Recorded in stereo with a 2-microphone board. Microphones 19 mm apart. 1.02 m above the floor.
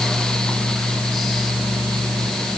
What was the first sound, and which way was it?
Only background noise.